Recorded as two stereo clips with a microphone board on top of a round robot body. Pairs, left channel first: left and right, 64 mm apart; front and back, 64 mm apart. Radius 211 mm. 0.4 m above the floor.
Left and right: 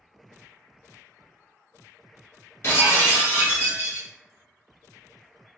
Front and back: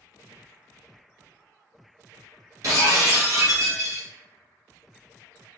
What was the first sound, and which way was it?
Breaking glass, 140° left.